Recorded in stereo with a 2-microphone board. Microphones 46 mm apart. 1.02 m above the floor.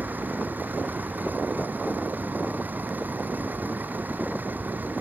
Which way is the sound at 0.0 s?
40° right (ahead or behind).